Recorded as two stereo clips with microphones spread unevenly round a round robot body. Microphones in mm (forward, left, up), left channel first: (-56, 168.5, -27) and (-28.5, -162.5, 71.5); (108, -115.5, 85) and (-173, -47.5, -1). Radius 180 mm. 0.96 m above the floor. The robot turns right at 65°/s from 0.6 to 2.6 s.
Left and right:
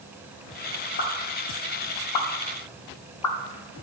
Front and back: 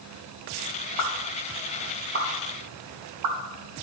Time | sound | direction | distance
1.0 | a pop | 25° left | 1.2 m